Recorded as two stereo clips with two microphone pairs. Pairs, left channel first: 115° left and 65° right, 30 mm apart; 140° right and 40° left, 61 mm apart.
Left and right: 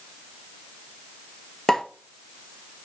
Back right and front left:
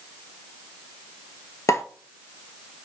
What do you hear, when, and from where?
1.7 s a pop: 165° right, 0.8 m